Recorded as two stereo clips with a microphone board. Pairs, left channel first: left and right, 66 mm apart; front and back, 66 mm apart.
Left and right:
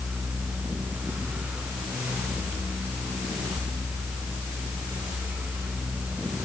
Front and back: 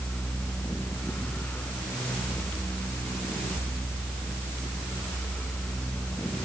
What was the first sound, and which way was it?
Only background noise.